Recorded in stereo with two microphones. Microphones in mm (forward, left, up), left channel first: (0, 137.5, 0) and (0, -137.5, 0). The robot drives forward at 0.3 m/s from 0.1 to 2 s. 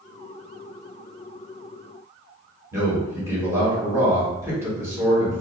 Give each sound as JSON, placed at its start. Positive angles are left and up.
{"t": 2.7, "sound": "a man speaking", "side_deg": -10, "distance_m": 1.5}